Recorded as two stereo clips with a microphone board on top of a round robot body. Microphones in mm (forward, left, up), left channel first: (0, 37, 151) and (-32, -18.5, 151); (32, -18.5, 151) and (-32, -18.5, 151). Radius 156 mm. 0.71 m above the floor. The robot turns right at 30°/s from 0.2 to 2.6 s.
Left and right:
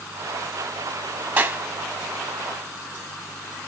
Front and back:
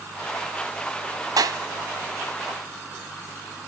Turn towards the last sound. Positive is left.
turn(degrees=-140)